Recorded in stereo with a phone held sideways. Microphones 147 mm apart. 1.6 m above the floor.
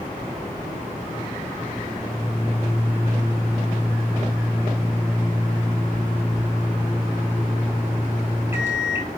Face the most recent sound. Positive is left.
turn(degrees=-15)  # may be behind; listen again after turning